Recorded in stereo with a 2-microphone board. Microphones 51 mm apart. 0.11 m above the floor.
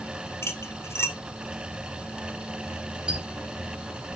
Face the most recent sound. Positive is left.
turn(degrees=-20)  # may be behind; listen again after turning